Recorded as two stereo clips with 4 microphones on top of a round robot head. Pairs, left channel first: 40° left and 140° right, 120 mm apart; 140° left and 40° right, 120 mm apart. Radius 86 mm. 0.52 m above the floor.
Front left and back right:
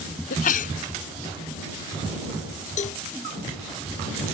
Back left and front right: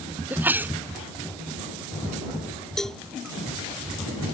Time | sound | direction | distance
0.3 | a sneeze | 35° left | ?
2.8 | a cowbell | 55° left | ?